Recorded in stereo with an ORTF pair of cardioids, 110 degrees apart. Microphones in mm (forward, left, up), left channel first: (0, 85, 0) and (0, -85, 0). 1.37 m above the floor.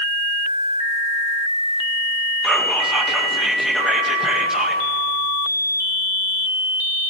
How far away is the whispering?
About 1.6 m.